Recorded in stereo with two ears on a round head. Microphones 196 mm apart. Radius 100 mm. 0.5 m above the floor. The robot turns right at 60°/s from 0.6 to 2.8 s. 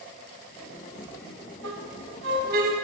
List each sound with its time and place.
1.6 s a squeak: 75° right (ahead or behind), 2.5 m; by 2.7 s 35° right (ahead or behind), 2.5 m